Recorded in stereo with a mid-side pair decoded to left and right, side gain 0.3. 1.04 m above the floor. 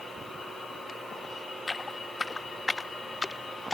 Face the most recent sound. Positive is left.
turn(degrees=35)